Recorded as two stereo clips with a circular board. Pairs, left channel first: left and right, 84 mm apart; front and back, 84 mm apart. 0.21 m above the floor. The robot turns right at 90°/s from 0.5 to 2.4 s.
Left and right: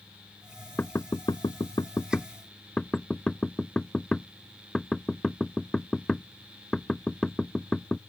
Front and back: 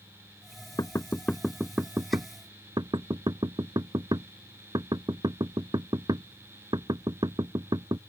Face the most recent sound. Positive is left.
turn(degrees=170)